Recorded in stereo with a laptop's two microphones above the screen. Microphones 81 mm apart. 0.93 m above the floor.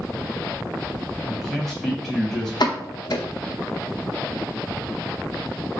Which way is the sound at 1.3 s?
10° right (ahead or behind).